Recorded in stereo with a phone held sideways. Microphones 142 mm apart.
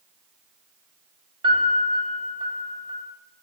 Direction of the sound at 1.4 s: 35° right (ahead or behind).